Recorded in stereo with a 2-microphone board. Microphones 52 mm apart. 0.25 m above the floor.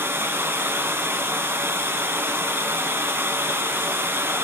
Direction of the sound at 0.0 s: 55° right (ahead or behind).